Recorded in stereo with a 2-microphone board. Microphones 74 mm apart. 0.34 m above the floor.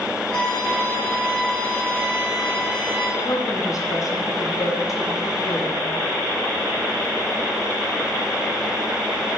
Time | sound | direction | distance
0.3 | a violin | 10° left (ahead or behind) | 2.5 m
3.2 | a woman speaking | 50° left (ahead or behind) | 1.6 m